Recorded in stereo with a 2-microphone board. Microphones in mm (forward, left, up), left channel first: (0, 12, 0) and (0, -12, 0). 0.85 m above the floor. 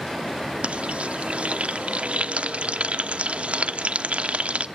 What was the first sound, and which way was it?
Frying, 65° right (ahead or behind).